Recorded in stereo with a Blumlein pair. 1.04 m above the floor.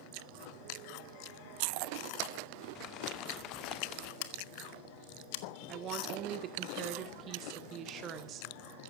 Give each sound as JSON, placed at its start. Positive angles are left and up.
{"t": 2.8, "sound": "crumpling", "azimuth_deg": 35, "distance_m": 1.2}
{"t": 4.2, "sound": "scissors", "azimuth_deg": 50, "distance_m": 1.5}
{"t": 5.7, "sound": "a woman speaking", "azimuth_deg": -30, "distance_m": 2.5}